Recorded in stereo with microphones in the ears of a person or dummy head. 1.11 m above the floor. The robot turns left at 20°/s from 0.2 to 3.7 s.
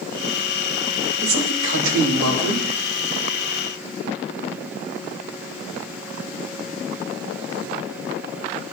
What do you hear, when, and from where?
1.2 s a man speaking: 60° right (ahead or behind), 4.5 m; by 2.7 s 90° right, 4.5 m